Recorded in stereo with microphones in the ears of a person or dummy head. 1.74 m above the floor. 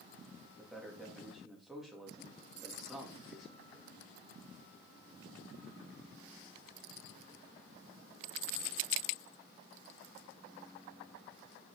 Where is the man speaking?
Centre (ahead or behind), 4 m.